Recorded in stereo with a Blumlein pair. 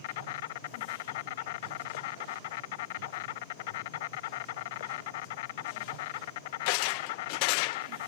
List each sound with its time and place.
0.0 s an insect: 50° left